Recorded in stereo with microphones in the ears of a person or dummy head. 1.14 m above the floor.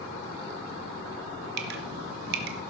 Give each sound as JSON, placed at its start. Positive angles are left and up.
{"t": 1.6, "sound": "dripping", "side_deg": -60, "distance_m": 1.1}